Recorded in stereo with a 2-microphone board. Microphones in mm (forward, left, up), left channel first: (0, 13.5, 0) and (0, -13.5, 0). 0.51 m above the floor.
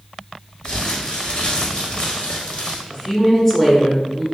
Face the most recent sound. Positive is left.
turn(degrees=30)  # may be behind; listen again after turning